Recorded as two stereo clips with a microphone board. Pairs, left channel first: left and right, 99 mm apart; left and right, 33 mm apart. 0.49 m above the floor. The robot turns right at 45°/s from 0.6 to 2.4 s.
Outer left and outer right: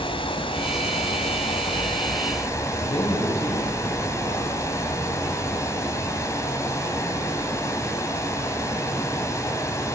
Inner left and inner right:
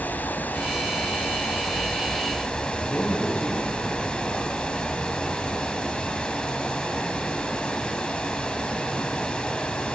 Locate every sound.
0.0 s running water: 65° left, 2.5 m; by 9.9 s 145° left, 2.5 m
2.8 s a man speaking: 70° left (ahead or behind), 4 m